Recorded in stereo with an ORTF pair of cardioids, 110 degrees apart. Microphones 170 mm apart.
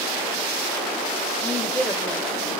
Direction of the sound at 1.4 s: 15° left.